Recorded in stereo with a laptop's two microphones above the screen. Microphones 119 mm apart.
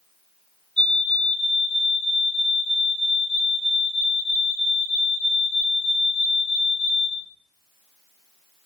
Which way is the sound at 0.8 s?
5° left (ahead or behind).